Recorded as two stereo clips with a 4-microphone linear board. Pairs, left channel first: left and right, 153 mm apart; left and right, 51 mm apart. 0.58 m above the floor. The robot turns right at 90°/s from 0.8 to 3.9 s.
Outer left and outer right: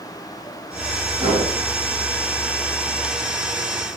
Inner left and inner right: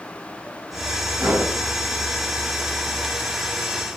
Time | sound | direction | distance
1.2 | a whoosh | 40° right (ahead or behind) | 1.5 m